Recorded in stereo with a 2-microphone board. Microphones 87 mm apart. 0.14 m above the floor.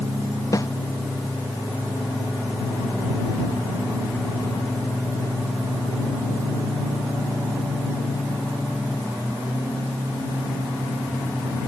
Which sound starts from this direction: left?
A snare drum, at 0.5 s.